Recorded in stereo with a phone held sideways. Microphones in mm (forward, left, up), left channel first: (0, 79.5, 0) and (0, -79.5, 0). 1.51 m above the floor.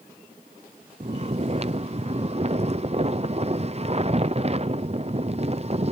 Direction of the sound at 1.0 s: 40° right (ahead or behind).